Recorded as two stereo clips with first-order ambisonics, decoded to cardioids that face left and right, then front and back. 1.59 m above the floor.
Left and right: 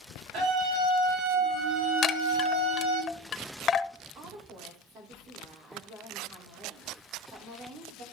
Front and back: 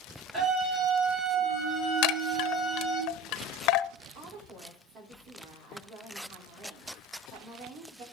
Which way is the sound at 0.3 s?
115° right.